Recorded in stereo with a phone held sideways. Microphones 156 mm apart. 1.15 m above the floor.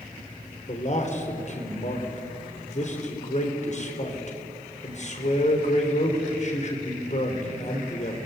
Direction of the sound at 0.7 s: 50° left (ahead or behind).